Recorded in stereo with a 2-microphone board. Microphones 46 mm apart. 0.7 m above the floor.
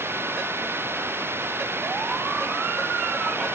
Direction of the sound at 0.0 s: 60° right (ahead or behind).